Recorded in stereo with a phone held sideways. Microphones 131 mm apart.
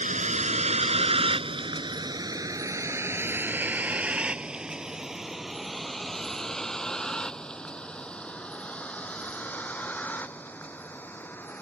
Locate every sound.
0.0 s a vehicle: 70° right (ahead or behind); by 11.6 s 15° left (ahead or behind)